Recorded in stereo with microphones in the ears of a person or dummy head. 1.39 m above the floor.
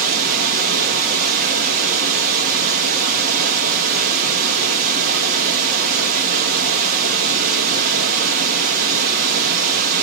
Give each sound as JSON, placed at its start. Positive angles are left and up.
{"t": 0.0, "sound": "running water", "side_deg": -50, "distance_m": 2.0}